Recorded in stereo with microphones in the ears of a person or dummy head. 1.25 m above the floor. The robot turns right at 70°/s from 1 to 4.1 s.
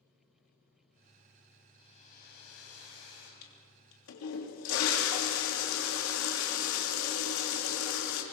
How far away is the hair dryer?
About 5.5 m.